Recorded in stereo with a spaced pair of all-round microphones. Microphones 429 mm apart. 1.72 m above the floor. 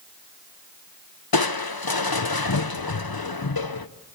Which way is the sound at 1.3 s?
60° left (ahead or behind).